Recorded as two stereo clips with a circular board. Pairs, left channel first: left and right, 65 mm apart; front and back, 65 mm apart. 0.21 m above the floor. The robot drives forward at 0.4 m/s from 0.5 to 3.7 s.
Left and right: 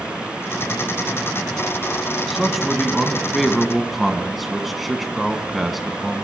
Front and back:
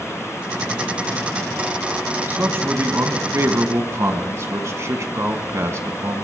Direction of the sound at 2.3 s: 175° right.